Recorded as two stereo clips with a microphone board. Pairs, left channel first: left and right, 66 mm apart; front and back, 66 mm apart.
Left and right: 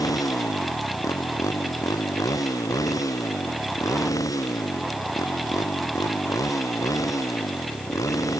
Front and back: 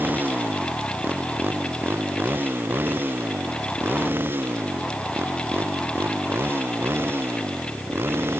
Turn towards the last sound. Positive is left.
turn(degrees=125)